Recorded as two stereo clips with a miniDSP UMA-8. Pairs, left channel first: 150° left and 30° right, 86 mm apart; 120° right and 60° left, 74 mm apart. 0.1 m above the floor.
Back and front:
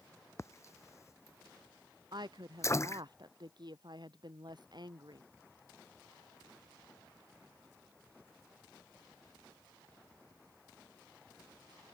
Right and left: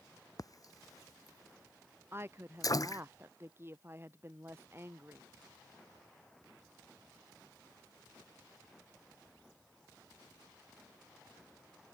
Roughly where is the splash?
Behind right.